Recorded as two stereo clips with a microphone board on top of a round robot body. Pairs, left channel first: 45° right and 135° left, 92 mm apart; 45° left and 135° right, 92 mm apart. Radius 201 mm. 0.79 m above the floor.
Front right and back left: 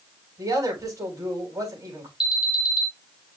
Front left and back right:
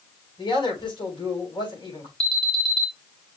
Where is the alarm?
50° left, 2.5 m.